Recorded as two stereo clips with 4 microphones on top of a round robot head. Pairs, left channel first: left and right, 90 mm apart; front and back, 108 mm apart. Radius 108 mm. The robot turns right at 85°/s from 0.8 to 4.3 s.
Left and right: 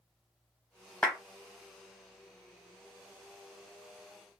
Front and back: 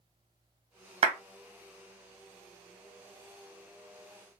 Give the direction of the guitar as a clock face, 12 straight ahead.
No guitar in this recording.